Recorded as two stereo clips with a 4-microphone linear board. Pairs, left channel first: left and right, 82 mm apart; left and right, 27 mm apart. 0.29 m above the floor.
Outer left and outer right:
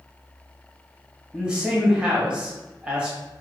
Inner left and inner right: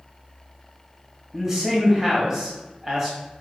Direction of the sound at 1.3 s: 10° right (ahead or behind).